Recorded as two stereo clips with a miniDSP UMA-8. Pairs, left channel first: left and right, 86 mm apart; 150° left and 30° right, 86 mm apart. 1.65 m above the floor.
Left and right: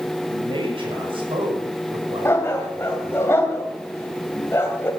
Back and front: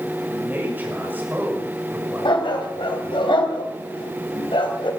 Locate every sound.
0.3 s a man speaking: 95° right, 6 m
2.2 s a dog barking: 150° left, 3.5 m